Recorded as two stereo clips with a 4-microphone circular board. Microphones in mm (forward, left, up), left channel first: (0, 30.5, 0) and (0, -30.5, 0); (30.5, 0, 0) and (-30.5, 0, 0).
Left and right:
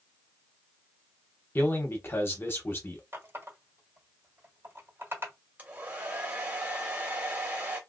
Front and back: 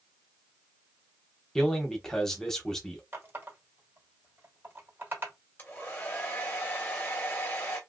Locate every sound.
1.6 s a man speaking: 75° left, 0.9 m
3.1 s a running tap: 130° right, 1.5 m
5.6 s a hair dryer: 40° right, 1.3 m